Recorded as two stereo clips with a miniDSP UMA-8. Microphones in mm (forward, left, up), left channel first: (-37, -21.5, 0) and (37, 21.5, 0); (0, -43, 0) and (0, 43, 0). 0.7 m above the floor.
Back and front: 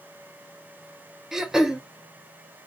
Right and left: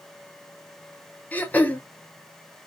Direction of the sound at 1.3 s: 50° right.